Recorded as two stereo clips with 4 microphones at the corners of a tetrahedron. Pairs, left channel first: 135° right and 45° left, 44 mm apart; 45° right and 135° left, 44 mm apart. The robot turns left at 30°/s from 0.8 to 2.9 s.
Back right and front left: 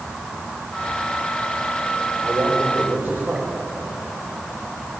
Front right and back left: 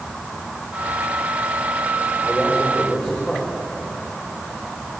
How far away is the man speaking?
About 5 m.